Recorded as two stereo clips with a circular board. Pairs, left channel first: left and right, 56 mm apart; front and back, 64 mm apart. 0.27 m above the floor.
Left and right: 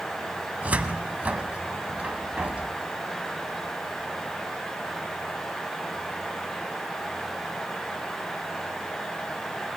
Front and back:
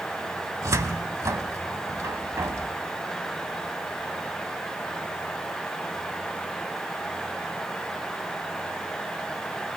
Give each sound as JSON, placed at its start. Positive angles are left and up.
{"t": 0.6, "sound": "a cupboard door", "azimuth_deg": -150, "distance_m": 0.7}